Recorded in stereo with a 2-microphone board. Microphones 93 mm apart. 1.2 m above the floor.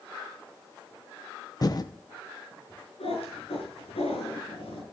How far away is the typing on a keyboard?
About 0.9 m.